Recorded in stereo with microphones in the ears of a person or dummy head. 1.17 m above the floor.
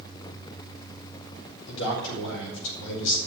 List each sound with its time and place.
1.7 s a man speaking: 70° left (ahead or behind), 4.5 m